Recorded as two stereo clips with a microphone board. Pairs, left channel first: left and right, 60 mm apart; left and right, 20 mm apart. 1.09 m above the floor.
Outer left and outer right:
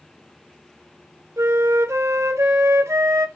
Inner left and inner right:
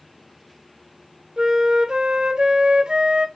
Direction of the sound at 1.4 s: 50° right (ahead or behind).